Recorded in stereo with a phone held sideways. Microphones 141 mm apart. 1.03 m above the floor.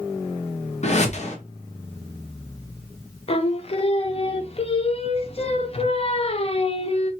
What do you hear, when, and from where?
0.8 s a whoosh: 50° left (ahead or behind), 0.8 m
3.3 s singing: 45° left (ahead or behind), 0.5 m